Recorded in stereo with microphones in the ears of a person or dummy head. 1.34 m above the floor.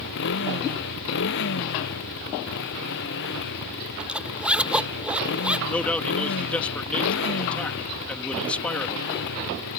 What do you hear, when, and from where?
0.0 s a motorcycle: 70° left (ahead or behind)
4.0 s a zipper: 5° right (ahead or behind)
5.7 s a man speaking: 10° left (ahead or behind)